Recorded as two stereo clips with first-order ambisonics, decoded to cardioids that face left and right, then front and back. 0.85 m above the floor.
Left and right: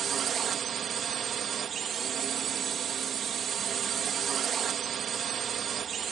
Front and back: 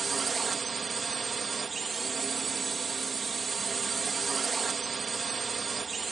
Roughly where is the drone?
Behind right.